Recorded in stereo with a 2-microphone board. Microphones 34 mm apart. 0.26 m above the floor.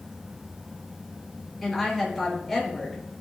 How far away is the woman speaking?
About 4.5 m.